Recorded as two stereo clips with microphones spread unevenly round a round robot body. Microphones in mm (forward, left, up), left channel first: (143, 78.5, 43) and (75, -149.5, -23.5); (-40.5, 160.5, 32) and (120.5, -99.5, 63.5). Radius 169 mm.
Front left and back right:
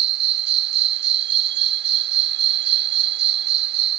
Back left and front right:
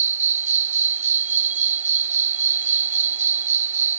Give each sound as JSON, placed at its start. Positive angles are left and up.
{"t": 0.0, "sound": "an insect", "azimuth_deg": -130}